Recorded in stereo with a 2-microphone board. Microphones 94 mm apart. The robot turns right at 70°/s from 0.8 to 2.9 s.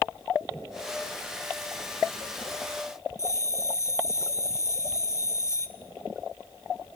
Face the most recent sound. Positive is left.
turn(degrees=30)  # may be behind; listen again after turning